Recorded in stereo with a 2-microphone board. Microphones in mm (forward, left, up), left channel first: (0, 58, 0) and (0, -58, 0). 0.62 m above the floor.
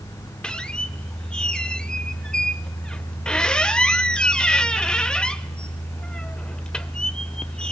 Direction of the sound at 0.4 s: 10° left (ahead or behind).